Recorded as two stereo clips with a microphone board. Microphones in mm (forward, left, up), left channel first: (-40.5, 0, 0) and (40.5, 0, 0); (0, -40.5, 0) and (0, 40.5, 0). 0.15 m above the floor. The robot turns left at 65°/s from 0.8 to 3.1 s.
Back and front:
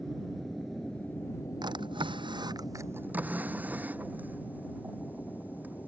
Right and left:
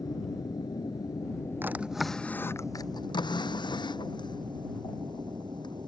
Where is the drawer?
25° left; by 5.9 s 70° right.